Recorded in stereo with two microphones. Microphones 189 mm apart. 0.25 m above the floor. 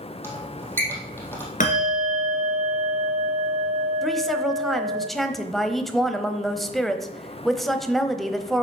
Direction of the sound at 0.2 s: 10° left (ahead or behind).